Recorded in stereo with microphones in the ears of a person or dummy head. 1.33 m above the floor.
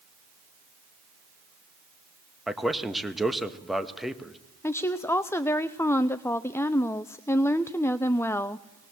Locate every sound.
2.5 s a man speaking: centre (ahead or behind), 1.3 m
4.6 s a woman speaking: 15° left (ahead or behind), 0.5 m